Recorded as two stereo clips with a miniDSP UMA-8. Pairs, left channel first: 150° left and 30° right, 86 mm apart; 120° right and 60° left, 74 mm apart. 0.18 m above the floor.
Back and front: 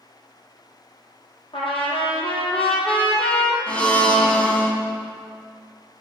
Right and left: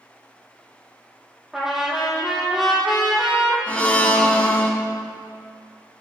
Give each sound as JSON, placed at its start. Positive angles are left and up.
{"t": 1.5, "sound": "a trumpet", "azimuth_deg": 145, "distance_m": 2.0}
{"t": 3.7, "sound": "a blender", "azimuth_deg": -150, "distance_m": 1.3}